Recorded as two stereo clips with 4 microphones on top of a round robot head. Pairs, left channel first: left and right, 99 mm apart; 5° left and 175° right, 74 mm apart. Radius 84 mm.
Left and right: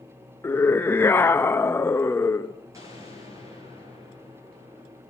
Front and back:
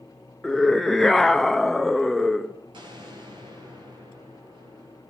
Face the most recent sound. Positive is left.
turn(degrees=-155)